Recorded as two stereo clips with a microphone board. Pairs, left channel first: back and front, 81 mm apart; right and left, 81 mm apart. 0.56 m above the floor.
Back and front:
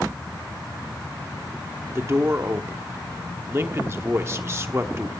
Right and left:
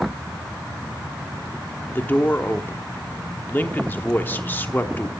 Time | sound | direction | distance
1.9 | a man speaking | 40° right | 1.0 m